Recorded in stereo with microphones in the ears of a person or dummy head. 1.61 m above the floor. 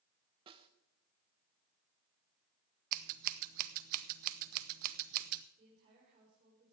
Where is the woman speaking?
35° right (ahead or behind), 4.5 m.